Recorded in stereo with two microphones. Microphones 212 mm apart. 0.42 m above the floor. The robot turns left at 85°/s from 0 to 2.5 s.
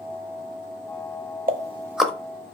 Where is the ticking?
45° right (ahead or behind), 0.7 m; by 2.1 s 5° left (ahead or behind), 0.7 m.